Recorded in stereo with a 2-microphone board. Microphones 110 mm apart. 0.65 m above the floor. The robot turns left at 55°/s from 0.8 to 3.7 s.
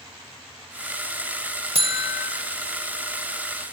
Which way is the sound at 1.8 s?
65° right (ahead or behind).